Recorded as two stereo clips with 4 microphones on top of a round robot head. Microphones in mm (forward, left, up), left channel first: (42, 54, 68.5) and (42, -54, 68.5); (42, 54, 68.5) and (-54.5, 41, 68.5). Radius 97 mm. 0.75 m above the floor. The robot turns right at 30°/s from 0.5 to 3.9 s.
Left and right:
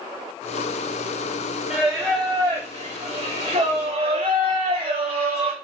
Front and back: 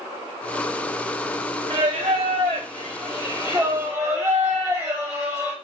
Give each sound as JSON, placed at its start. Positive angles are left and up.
{"t": 1.7, "sound": "singing", "azimuth_deg": -165, "distance_m": 0.6}